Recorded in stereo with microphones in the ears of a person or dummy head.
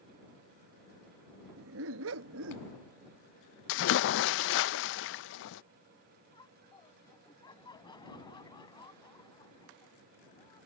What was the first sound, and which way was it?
A dog barking, 70° right (ahead or behind).